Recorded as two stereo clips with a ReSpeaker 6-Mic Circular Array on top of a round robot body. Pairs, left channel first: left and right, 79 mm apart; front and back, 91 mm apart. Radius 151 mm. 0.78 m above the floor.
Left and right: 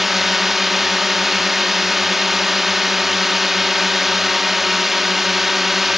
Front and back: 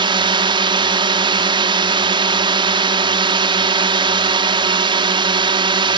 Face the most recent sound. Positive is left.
turn(degrees=180)